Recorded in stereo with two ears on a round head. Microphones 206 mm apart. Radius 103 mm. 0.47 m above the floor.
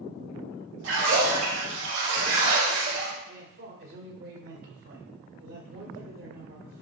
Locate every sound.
0.8 s a splash: 65° right (ahead or behind), 4 m
3.3 s a man speaking: 55° right (ahead or behind), 2 m